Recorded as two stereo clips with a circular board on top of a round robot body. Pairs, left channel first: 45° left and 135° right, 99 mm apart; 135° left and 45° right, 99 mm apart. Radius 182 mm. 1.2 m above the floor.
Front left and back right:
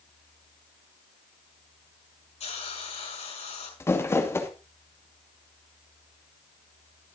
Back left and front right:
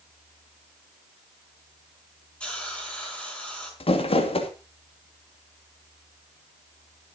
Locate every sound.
2.4 s a hiss: 55° left, 5.5 m
3.8 s crumpling: 110° left, 2.5 m